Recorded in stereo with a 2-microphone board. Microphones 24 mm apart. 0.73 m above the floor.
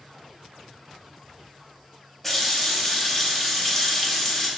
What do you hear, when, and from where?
2.2 s a running tap: 10° left (ahead or behind), 0.7 m